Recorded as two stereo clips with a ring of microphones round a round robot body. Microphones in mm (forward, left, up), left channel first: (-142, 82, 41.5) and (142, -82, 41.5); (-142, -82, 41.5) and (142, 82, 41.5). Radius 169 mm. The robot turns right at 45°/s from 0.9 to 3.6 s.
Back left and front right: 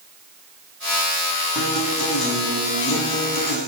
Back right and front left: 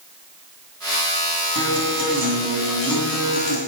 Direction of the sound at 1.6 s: 65° left.